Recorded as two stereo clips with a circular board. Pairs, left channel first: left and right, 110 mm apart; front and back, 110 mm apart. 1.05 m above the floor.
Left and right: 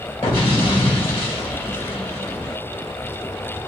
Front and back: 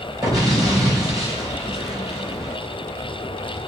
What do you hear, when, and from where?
0.2 s an explosion: 120° left, 3 m